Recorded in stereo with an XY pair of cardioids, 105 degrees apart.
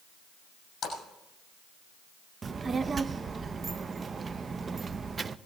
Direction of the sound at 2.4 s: 35° right.